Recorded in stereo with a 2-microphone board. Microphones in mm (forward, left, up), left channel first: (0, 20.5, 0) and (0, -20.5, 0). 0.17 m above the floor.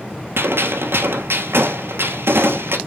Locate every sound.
0.4 s a gunshot: 75° right (ahead or behind), 1.2 m